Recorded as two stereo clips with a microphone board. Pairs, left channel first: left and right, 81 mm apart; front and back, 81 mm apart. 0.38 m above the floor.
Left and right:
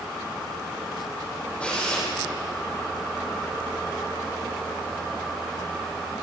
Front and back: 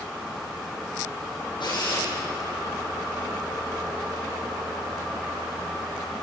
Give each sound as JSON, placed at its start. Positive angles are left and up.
{"t": 1.6, "sound": "a drill", "azimuth_deg": 15, "distance_m": 8.5}